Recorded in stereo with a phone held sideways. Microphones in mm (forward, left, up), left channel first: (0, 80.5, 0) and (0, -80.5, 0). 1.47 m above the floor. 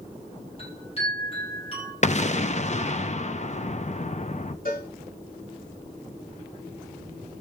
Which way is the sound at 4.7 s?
60° left (ahead or behind).